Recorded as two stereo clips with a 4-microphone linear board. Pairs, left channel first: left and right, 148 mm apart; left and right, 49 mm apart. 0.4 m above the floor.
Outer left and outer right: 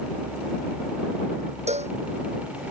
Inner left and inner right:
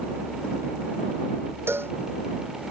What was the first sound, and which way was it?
A cowbell, 50° right (ahead or behind).